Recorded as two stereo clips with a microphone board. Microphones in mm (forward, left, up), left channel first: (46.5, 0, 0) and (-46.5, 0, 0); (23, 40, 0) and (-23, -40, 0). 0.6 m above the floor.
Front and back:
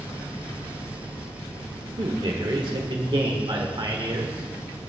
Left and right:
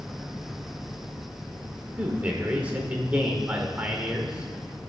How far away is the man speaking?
About 1.4 m.